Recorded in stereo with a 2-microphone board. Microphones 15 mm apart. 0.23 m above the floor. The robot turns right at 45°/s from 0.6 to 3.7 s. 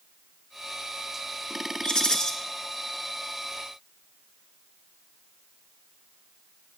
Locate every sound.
1.8 s a rattle: 55° left (ahead or behind), 2 m; by 2.3 s 40° left (ahead or behind), 2 m